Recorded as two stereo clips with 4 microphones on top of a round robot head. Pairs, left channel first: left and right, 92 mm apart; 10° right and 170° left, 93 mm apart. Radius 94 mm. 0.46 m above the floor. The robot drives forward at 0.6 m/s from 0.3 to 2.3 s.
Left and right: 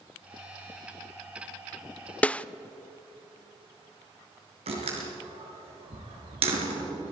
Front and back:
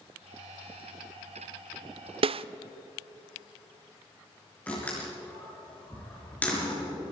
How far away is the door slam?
About 5.5 m.